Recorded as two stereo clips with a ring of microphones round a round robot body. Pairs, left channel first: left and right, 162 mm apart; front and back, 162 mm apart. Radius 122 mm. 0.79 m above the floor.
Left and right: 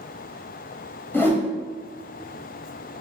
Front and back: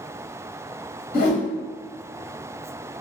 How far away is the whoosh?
About 1.0 m.